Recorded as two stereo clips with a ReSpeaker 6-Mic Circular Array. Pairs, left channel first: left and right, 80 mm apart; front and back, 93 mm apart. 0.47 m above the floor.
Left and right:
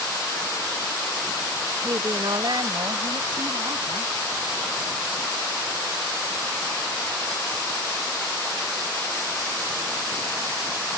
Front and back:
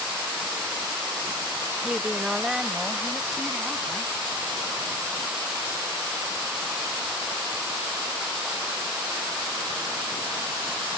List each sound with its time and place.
1.8 s a woman speaking: 100° right; by 4.1 s 90° right